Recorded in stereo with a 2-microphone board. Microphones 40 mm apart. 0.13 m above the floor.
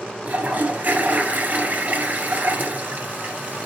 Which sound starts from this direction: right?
A toilet flushing, at 0.2 s.